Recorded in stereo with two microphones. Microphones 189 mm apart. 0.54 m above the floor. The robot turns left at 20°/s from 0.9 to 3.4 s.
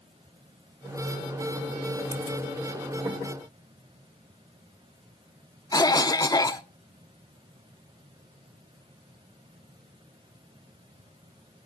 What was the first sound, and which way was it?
A cough, 20° left (ahead or behind).